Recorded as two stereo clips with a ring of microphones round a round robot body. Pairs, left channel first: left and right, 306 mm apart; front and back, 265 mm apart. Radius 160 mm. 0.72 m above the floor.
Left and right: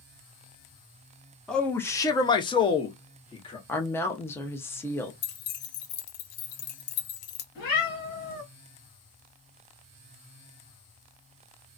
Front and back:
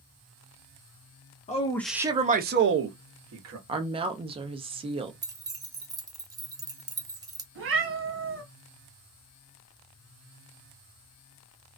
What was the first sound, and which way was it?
A man speaking, 5° left.